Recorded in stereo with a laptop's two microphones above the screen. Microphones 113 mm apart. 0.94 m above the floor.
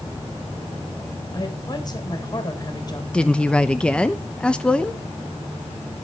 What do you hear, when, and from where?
1.3 s a woman speaking: 35° left (ahead or behind), 3.5 m
3.1 s a woman speaking: 10° left (ahead or behind), 0.9 m